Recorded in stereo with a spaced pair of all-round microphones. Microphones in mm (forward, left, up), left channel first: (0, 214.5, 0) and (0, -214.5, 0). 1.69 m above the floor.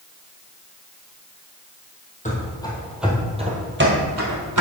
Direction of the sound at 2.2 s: 15° left (ahead or behind).